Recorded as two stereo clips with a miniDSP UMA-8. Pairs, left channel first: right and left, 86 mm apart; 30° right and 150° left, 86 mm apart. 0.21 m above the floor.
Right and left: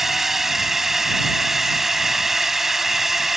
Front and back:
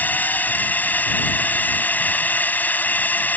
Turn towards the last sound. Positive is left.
turn(degrees=10)